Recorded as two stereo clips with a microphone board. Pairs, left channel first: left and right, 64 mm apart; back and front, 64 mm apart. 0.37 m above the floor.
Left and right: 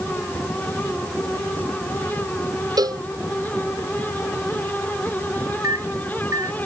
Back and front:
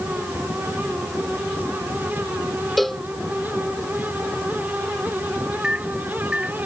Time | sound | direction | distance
2.8 | a cowbell | 95° right | ?
5.6 | a microwave | 80° right | ?